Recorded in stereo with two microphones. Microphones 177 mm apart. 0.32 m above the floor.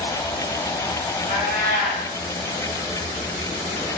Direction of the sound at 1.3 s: 60° right (ahead or behind).